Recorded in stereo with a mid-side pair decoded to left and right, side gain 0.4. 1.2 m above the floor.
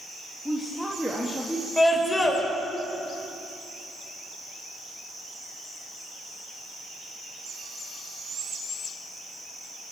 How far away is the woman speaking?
About 2.5 m.